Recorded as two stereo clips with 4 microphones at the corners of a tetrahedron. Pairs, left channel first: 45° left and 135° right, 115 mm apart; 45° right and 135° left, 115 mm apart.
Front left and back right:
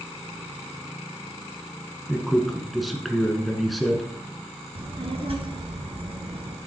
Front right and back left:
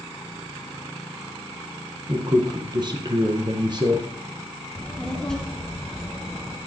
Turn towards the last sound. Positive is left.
turn(degrees=-125)